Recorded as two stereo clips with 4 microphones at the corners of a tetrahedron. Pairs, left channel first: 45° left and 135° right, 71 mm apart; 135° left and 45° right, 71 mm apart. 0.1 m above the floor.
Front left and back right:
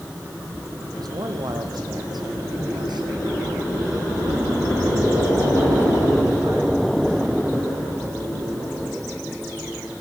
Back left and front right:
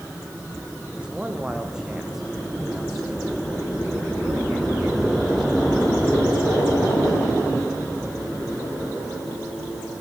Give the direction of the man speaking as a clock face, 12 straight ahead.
4 o'clock.